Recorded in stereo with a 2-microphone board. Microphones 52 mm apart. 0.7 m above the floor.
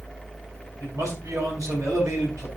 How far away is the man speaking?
About 6 m.